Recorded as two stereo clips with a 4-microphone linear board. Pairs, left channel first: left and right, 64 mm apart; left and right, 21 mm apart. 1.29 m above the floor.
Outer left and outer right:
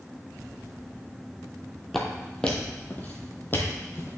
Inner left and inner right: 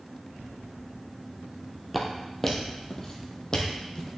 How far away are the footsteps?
About 1.5 m.